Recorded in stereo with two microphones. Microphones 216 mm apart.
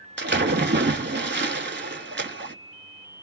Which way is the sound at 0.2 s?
55° right (ahead or behind).